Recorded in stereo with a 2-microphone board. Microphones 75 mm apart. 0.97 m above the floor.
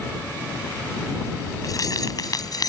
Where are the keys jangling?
50° left (ahead or behind); by 2.7 s 55° left (ahead or behind).